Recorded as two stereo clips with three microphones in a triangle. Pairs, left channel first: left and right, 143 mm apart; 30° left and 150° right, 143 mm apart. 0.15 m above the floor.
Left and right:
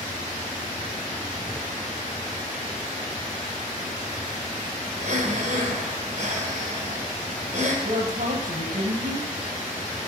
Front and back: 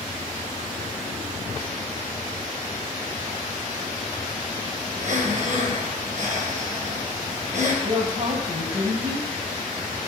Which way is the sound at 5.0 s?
125° right.